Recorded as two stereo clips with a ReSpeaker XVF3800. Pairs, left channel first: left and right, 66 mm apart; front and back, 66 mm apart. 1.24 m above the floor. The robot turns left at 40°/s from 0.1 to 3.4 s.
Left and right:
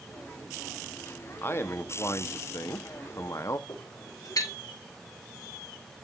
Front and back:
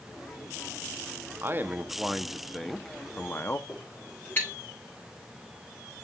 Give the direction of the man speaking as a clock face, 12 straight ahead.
7 o'clock.